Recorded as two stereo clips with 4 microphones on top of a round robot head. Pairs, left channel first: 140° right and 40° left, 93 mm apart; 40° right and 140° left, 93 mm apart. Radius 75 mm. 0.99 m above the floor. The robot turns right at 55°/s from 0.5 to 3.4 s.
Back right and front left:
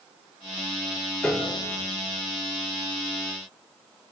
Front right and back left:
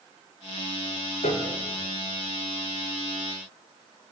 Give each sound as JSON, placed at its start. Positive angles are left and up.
{"t": 1.2, "sound": "a piano", "azimuth_deg": -60, "distance_m": 4.0}